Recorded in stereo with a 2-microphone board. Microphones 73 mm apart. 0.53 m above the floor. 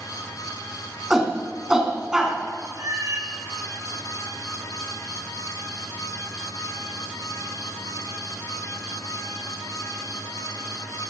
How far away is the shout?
About 4 m.